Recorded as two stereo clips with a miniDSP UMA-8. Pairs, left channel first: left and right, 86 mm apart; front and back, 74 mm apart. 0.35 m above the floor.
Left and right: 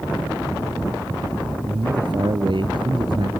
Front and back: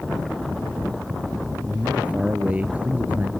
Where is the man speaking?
105° right; by 3.3 s 110° right.